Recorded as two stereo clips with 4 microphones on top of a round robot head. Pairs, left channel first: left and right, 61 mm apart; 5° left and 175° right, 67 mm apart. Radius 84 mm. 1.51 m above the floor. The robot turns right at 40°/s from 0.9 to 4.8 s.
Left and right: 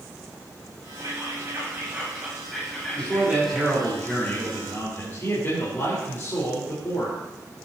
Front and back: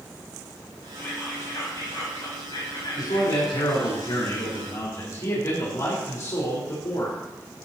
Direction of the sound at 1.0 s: 65° right.